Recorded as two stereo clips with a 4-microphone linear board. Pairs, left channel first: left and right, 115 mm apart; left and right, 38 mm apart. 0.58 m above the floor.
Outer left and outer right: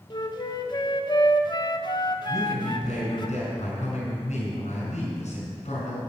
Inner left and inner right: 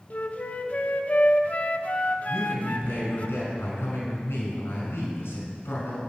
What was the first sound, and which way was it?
A flute, 40° left (ahead or behind).